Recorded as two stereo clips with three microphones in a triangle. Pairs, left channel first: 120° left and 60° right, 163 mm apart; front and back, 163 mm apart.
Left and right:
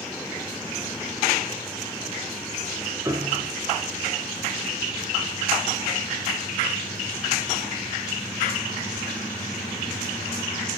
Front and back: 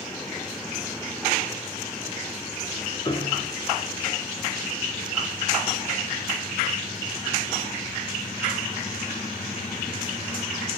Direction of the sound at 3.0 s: 10° right.